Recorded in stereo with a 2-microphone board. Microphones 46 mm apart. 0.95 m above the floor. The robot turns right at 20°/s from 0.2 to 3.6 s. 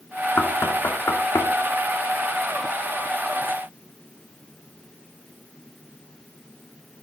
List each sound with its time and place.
0.4 s knocking: 70° left (ahead or behind), 2 m; by 1.5 s 75° left (ahead or behind), 2 m